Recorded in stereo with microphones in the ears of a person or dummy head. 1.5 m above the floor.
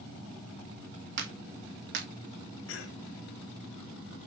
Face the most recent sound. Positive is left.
turn(degrees=75)  # may be behind; listen again after turning